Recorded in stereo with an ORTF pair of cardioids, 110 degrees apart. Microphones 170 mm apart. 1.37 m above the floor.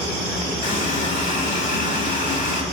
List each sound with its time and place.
0.6 s a running tap: 50° left, 1.9 m